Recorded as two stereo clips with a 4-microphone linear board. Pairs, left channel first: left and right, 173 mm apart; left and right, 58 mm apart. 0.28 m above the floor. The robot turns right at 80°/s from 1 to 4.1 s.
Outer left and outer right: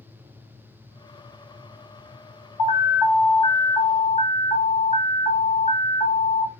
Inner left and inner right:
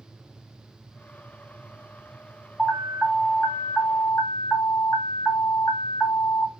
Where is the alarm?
40° right, 2 m; by 6.5 s 80° left, 2 m.